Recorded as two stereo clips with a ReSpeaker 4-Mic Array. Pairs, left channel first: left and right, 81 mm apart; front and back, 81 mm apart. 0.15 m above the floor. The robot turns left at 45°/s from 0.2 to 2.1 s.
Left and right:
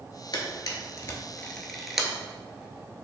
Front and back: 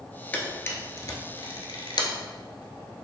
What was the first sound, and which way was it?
A camera shutter, 70° left.